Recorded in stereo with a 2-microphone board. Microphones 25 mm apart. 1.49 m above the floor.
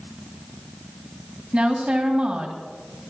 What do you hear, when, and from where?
1.5 s a woman speaking: 55° right (ahead or behind), 2.5 m